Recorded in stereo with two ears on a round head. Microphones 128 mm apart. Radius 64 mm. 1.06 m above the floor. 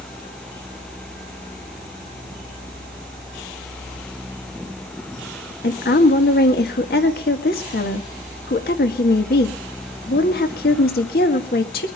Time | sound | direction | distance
5.6 | a woman speaking | 75° left (ahead or behind) | 1.8 m